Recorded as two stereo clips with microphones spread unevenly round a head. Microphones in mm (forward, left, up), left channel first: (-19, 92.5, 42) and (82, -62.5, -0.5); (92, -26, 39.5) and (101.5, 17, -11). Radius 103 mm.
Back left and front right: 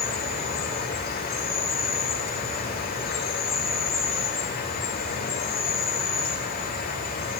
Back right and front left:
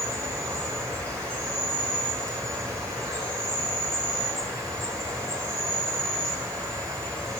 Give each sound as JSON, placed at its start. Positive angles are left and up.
{"t": 0.0, "sound": "an insect", "azimuth_deg": 80, "distance_m": 2.5}